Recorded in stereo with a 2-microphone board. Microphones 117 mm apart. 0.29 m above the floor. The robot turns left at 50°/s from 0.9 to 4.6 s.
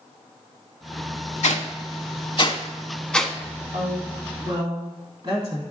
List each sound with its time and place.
1.4 s a whoosh: 85° left, 0.5 m; by 3.4 s 5° right (ahead or behind), 0.5 m
3.7 s a woman speaking: 60° right (ahead or behind), 2 m; by 5.6 s 45° right (ahead or behind), 2 m